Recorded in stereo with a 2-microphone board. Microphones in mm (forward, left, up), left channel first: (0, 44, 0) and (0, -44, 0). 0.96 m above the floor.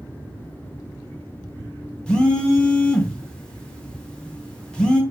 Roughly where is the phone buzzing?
Centre.